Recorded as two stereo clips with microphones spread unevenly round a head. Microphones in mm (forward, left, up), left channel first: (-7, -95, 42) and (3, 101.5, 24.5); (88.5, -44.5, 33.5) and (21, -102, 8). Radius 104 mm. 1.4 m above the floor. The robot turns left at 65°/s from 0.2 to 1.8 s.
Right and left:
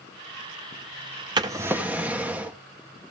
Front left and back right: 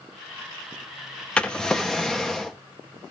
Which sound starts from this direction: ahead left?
A drawer, at 1.4 s.